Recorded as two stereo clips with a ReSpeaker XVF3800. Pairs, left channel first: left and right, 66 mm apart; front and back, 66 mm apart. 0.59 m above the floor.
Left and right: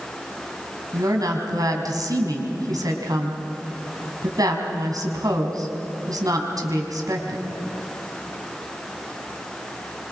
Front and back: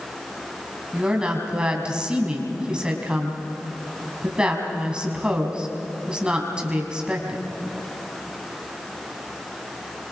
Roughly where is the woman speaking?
Right.